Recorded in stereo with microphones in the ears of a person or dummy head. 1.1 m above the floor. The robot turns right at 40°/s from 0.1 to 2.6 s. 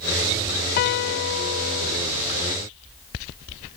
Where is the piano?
55° left; by 2.0 s 100° left.